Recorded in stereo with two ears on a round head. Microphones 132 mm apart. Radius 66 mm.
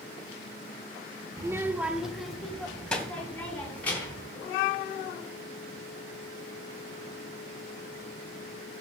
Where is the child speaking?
25° right (ahead or behind), 0.8 m; by 4.3 s 10° left (ahead or behind), 3.5 m.